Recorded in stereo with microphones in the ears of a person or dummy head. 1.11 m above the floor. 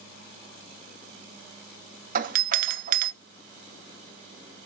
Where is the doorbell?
40° right (ahead or behind), 0.7 m.